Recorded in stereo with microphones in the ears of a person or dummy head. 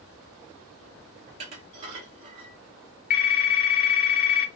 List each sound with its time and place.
1.3 s dishes clattering: 40° right (ahead or behind), 0.7 m
3.1 s a phone ringing: 40° left (ahead or behind), 0.8 m